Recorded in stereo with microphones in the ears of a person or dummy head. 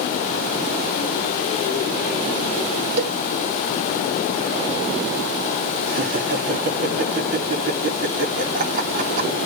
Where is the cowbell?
60° right (ahead or behind), 1.3 m.